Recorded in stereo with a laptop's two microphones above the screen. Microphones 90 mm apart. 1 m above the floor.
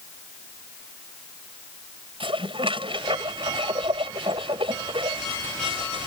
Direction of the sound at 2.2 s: 80° right.